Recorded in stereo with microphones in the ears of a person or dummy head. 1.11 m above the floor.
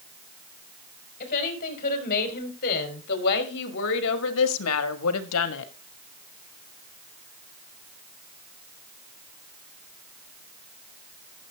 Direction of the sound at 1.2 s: 45° left (ahead or behind).